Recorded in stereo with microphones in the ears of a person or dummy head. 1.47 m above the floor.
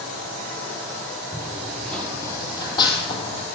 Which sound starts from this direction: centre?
Running footsteps, at 1.3 s.